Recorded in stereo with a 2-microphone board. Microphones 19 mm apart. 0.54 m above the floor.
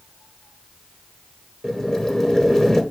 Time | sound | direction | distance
1.6 | boiling | 35° left (ahead or behind) | 1.1 m